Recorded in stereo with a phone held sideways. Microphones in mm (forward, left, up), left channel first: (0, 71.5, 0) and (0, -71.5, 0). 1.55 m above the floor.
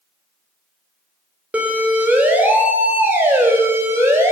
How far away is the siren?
About 5.5 m.